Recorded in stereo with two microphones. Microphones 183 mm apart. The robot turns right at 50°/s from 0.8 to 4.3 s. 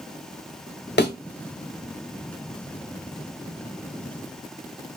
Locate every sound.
1.0 s a thud: 70° left (ahead or behind), 0.8 m; by 1.1 s 60° left (ahead or behind), 0.8 m